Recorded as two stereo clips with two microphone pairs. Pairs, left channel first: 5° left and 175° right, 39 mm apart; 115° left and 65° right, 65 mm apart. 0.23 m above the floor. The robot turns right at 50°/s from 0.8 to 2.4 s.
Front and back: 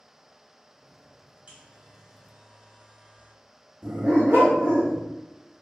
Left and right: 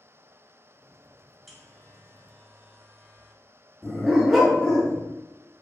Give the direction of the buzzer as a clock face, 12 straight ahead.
5 o'clock.